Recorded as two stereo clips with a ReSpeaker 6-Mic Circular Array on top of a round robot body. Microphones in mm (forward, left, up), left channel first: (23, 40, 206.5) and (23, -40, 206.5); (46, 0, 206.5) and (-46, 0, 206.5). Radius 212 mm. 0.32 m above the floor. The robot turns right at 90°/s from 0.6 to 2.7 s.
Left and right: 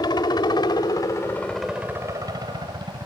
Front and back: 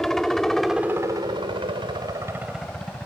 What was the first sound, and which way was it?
A helicopter, 85° left.